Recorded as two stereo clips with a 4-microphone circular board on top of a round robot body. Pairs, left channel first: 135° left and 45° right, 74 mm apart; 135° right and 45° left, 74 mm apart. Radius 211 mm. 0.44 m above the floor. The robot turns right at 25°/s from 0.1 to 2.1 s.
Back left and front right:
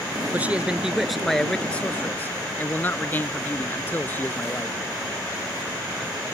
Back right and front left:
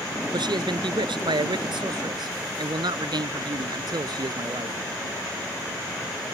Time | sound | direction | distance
0.3 | a man speaking | 25° left | ?